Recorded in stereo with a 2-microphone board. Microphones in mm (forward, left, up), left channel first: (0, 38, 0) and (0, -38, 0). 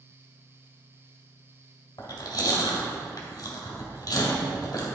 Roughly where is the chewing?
Left.